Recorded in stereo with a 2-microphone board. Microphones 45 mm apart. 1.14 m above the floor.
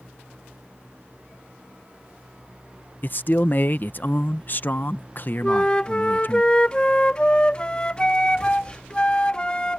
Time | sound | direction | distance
3.0 | a man speaking | 45° left (ahead or behind) | ?
5.4 | a flute | 20° left (ahead or behind) | ?